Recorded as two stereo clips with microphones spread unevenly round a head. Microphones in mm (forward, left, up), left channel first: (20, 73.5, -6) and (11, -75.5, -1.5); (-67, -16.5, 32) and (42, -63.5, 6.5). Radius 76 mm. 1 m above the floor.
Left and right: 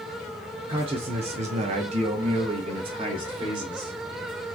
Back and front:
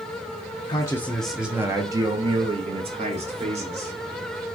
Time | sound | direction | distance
0.7 | a man speaking | 145° right | 0.7 m